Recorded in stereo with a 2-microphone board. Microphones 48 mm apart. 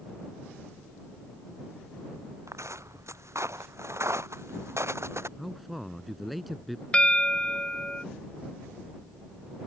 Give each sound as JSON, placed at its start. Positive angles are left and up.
{"t": 2.5, "sound": "footsteps", "side_deg": -75}
{"t": 5.4, "sound": "a man speaking", "side_deg": 0}
{"t": 6.9, "sound": "a bell", "side_deg": 20}